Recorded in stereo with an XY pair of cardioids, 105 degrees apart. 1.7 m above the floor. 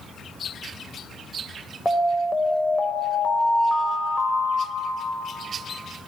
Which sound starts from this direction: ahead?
An alarm, at 1.9 s.